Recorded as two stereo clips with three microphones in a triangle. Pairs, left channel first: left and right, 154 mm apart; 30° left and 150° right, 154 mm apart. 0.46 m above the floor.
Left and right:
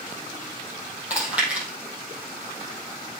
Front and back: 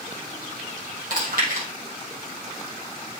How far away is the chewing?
About 4 m.